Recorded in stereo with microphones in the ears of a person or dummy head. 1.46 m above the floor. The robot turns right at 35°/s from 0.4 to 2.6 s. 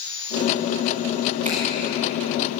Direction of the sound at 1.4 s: 40° right (ahead or behind).